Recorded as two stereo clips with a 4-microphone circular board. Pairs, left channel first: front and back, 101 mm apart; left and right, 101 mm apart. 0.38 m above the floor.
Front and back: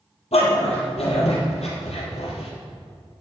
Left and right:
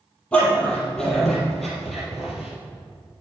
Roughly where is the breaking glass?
No breaking glass in this recording.